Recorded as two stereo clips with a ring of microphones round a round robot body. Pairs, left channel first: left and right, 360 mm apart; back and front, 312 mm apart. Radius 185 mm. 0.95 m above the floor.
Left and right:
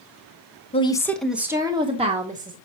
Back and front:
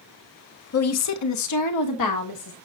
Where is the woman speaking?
160° left, 0.8 m; by 2.6 s 155° right, 1.6 m.